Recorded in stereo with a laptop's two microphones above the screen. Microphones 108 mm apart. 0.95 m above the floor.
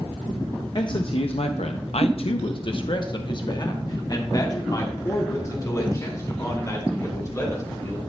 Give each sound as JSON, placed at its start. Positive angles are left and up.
{"t": 0.8, "sound": "a man speaking", "side_deg": 40, "distance_m": 0.6}